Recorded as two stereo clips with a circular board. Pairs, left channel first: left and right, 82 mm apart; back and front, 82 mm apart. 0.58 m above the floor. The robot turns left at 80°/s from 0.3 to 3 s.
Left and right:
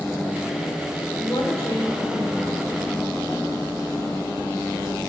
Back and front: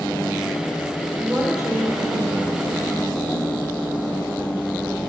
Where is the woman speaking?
75° left, 2.5 m; by 2.8 s 50° right, 2.5 m.